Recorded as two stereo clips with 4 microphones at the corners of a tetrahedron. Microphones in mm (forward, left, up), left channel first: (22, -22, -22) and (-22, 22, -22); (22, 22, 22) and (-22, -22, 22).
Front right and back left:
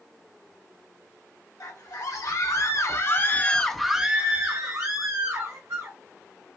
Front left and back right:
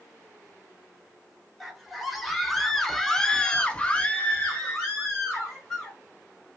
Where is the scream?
50° right, 1.5 m; by 6.0 s 120° left, 1.5 m.